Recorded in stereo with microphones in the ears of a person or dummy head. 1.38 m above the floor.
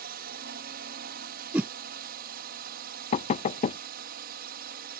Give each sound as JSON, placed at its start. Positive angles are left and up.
{"t": 0.0, "sound": "a drone", "side_deg": -45}
{"t": 1.5, "sound": "a whoosh", "side_deg": -5}
{"t": 3.1, "sound": "knocking", "side_deg": 40}